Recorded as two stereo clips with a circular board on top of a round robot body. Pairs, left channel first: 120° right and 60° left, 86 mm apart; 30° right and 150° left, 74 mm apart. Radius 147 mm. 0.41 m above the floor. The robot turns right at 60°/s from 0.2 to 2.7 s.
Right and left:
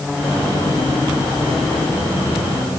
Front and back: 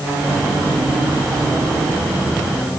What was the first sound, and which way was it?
Only background noise.